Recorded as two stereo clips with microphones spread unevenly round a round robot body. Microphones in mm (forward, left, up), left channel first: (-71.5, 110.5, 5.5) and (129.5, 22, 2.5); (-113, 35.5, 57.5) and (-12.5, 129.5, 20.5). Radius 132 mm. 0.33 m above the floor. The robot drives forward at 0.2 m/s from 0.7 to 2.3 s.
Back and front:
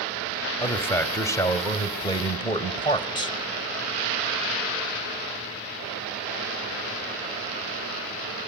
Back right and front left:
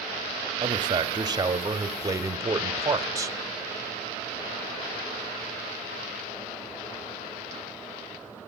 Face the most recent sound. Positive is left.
turn(degrees=90)